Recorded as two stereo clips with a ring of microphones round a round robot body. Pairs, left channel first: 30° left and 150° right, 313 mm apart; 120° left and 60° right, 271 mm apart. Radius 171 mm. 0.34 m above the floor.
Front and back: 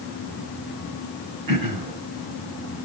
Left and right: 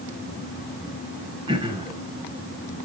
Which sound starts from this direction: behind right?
Throat clearing, at 1.5 s.